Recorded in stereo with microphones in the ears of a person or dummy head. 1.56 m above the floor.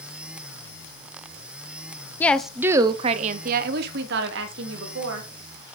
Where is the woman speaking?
10° left (ahead or behind), 0.6 m; by 5.3 s 80° right, 1.7 m.